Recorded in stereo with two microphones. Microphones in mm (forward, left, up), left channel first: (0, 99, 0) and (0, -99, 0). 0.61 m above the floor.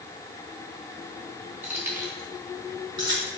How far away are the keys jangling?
About 3.5 m.